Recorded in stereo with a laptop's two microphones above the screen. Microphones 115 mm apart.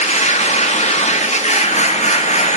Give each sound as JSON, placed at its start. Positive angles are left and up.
{"t": 0.0, "sound": "a machine running", "side_deg": 80, "distance_m": 1.3}